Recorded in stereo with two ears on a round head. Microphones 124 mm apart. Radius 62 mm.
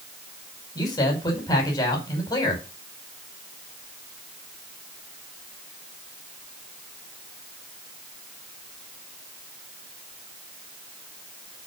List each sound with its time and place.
0.8 s a man speaking: 30° left (ahead or behind), 5 m